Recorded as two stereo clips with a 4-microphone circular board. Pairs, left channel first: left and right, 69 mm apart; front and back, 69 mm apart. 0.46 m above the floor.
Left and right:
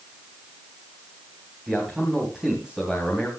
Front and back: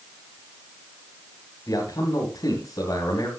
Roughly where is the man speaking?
Ahead.